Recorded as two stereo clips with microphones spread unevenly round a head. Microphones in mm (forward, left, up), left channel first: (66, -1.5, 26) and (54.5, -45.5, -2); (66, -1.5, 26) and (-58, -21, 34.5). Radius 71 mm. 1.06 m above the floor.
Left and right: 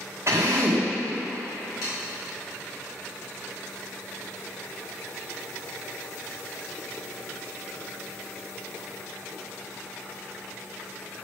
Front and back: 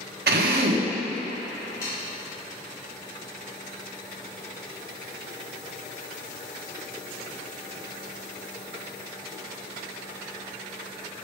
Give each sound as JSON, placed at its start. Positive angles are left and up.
{"t": 0.3, "sound": "a drill", "azimuth_deg": 175, "distance_m": 1.0}
{"t": 1.8, "sound": "sawing", "azimuth_deg": 75, "distance_m": 2.5}